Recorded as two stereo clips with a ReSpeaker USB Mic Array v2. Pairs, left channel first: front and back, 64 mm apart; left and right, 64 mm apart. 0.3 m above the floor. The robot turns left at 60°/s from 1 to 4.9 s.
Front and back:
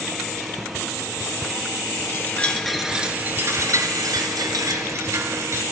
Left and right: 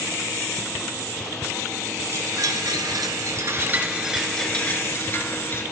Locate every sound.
2.1 s a chime: 50° right, 1.3 m; by 5.6 s 140° left, 1.3 m